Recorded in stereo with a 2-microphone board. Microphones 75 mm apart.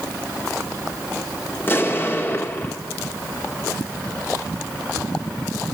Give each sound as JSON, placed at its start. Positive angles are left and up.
{"t": 1.6, "sound": "an explosion", "side_deg": 30, "distance_m": 1.5}